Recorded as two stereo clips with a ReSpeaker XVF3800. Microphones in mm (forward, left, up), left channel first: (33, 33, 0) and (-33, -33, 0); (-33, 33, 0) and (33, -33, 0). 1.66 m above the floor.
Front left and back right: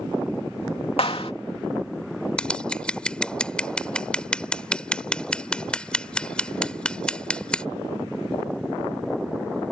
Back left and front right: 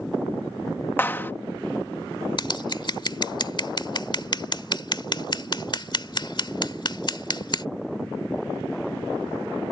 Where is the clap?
65° left.